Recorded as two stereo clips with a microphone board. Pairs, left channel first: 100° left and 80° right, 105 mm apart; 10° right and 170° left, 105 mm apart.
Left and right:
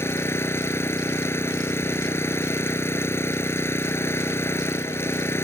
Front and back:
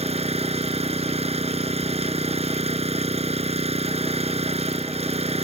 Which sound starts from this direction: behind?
An engine running, at 0.0 s.